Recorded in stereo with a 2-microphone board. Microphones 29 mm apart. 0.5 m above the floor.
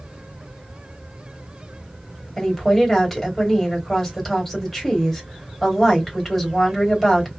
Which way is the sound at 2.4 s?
5° left (ahead or behind).